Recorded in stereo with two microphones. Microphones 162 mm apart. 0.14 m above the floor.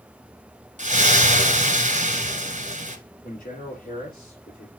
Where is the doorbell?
I don't hear a doorbell.